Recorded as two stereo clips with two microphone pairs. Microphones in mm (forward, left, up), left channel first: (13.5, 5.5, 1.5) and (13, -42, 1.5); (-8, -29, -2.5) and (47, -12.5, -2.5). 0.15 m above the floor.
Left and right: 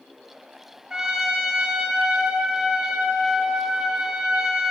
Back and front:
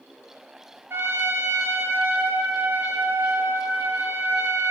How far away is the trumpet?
About 1.4 m.